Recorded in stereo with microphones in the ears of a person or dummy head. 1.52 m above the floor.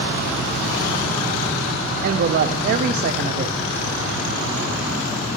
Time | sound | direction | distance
2.0 | a woman speaking | 50° right (ahead or behind) | 0.6 m